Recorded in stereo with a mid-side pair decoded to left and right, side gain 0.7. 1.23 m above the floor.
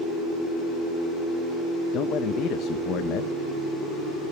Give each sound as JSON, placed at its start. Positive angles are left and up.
{"t": 1.9, "sound": "a man speaking", "azimuth_deg": 50, "distance_m": 1.1}